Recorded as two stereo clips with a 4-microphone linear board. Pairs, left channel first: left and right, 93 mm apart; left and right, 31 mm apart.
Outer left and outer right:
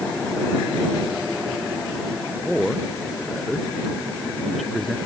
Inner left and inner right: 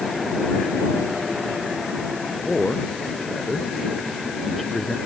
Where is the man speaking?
Centre (ahead or behind).